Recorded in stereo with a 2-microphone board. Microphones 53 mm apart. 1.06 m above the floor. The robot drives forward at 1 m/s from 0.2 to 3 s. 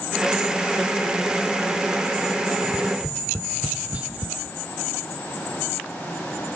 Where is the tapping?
20° right (ahead or behind), 0.8 m; by 4.3 s 25° right (ahead or behind), 0.7 m.